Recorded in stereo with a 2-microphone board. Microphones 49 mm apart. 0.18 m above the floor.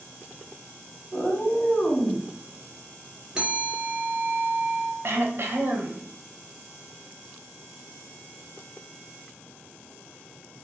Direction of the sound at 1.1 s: 20° left (ahead or behind).